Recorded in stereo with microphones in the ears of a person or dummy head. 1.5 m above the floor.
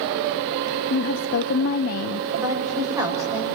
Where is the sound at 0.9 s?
50° left (ahead or behind), 0.5 m.